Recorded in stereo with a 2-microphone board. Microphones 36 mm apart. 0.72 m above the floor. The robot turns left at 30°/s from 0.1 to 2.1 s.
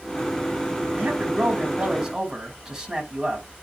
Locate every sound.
1.0 s a man speaking: 135° right, 4 m; by 3.5 s 170° right, 4 m